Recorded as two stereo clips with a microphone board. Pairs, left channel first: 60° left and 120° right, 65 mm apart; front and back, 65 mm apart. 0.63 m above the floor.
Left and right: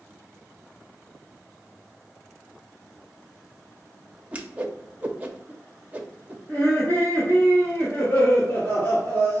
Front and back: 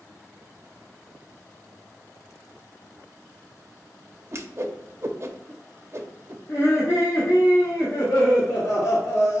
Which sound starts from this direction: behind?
A whoosh, at 4.3 s.